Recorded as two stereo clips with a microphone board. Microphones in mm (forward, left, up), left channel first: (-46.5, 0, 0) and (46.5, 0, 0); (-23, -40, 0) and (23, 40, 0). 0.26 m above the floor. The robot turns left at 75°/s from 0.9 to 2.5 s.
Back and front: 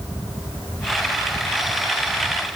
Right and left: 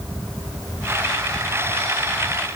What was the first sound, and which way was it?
Only background noise.